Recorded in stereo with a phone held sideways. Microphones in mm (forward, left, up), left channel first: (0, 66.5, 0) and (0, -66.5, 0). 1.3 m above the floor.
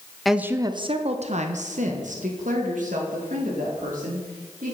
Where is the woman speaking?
Centre (ahead or behind), 0.5 m; by 4.7 s 80° right, 3.5 m.